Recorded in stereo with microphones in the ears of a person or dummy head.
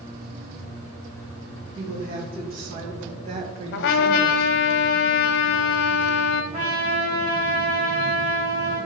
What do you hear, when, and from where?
1.8 s a woman speaking: 50° right (ahead or behind), 2.5 m; by 4.5 s 15° right (ahead or behind), 1.2 m
3.7 s a trumpet: 60° left (ahead or behind), 0.8 m
6.5 s a trumpet: 30° right (ahead or behind), 4 m